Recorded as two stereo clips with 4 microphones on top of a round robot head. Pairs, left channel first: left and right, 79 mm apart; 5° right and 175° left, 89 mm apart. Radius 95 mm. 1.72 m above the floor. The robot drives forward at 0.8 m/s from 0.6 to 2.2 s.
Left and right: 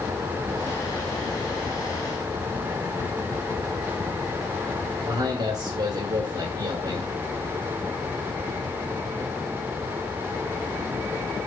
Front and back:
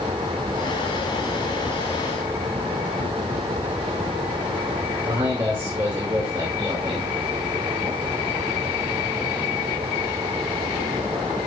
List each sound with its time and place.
5.0 s a man speaking: 120° right, 2.5 m